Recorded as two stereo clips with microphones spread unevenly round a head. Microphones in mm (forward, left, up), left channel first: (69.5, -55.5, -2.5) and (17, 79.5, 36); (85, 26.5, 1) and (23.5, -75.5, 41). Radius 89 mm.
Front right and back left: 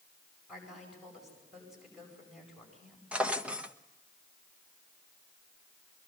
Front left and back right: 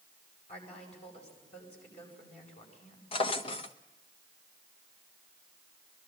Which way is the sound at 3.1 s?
95° left.